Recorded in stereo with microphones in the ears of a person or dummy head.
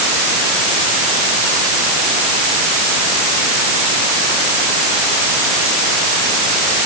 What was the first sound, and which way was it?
Only background noise.